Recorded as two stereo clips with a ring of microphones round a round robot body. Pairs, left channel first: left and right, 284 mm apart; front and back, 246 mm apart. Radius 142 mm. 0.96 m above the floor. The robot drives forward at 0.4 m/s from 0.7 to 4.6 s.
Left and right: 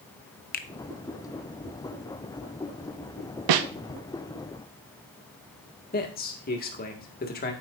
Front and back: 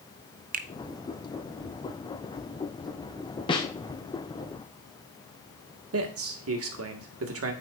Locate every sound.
0.5 s a finger snap: 135° left, 0.7 m
3.5 s a snare drum: 75° right, 0.7 m; by 3.7 s 80° right, 0.7 m
5.9 s a man speaking: 150° left, 1.8 m